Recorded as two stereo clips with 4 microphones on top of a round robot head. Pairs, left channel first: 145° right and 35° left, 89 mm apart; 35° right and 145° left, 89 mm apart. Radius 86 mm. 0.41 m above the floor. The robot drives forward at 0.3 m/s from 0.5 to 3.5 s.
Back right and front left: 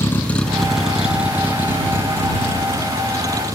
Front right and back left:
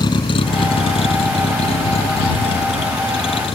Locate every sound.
0.0 s a vehicle: 80° right; by 3.5 s 15° right